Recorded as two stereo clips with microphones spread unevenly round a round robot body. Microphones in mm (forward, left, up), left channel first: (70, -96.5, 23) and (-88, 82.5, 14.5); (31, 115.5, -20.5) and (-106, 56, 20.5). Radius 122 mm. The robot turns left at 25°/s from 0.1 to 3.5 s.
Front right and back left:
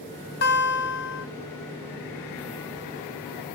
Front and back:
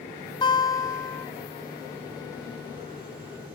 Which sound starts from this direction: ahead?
A guitar, at 0.4 s.